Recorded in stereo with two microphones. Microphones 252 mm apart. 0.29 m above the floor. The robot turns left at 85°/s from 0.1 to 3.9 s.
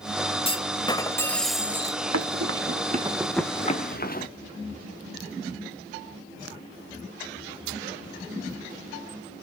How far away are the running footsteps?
About 2.5 m.